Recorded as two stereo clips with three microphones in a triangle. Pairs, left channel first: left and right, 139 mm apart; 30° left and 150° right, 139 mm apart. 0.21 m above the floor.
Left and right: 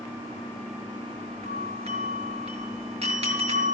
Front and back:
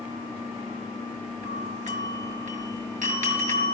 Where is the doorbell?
130° right, 5.5 m.